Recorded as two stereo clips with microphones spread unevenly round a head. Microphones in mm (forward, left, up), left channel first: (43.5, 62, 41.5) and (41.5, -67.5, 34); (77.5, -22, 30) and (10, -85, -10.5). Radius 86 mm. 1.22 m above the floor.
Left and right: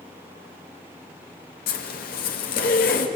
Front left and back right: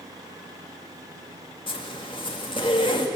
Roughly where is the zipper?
Left.